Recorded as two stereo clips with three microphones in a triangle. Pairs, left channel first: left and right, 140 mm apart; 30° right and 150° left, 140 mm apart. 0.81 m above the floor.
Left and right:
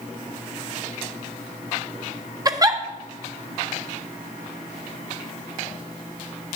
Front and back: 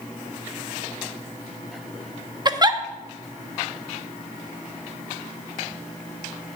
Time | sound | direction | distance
2.5 | a giggle | 150° right | 0.6 m